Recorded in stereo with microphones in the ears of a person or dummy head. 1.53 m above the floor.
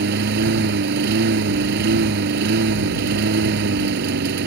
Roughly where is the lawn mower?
Right.